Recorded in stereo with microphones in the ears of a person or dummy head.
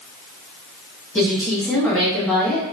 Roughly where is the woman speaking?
Centre.